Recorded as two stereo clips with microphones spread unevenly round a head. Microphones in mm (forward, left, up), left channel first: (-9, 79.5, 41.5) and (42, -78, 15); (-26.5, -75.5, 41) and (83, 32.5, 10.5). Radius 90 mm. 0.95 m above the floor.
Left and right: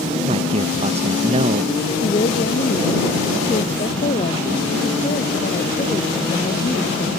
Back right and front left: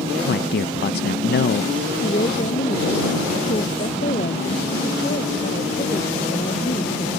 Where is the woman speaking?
165° left.